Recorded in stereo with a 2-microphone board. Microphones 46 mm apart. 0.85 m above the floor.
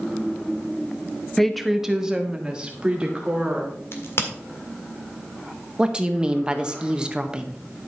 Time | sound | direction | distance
1.4 | a woman speaking | 10° left (ahead or behind) | 0.7 m
3.9 | a crack | 60° left (ahead or behind) | 1.7 m
5.8 | a woman speaking | 20° right (ahead or behind) | 0.9 m